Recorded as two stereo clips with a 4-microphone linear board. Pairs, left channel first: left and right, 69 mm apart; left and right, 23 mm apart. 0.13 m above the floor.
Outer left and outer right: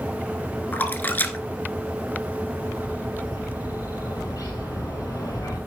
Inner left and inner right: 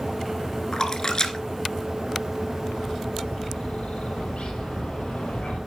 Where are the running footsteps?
No running footsteps in this recording.